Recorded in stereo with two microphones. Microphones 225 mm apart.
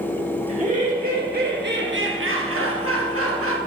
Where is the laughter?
35° right (ahead or behind), 3 m; by 3.6 s 75° right (ahead or behind), 1.9 m.